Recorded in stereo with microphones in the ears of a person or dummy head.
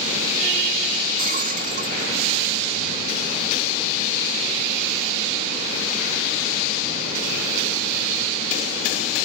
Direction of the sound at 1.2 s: 50° right (ahead or behind).